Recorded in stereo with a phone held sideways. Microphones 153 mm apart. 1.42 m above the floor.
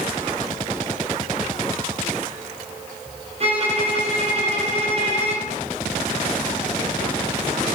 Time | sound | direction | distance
3.4 | a violin | 45° right (ahead or behind) | 0.8 m